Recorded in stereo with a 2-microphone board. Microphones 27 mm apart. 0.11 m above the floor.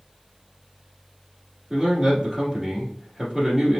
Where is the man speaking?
20° right (ahead or behind), 1.5 m.